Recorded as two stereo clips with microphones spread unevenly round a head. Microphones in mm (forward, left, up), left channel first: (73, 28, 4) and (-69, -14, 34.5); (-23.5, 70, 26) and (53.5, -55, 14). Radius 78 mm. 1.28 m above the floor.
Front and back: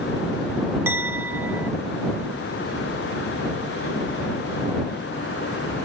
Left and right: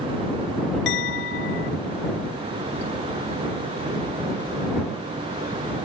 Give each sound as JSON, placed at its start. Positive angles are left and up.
{"t": 0.9, "sound": "a clink", "azimuth_deg": 125}